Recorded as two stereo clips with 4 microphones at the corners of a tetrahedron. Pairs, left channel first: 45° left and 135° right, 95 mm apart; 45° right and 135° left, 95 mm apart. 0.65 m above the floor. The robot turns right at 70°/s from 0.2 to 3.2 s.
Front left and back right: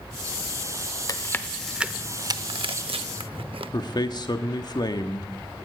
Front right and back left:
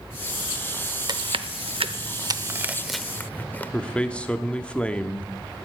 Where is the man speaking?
30° left, 1.1 m.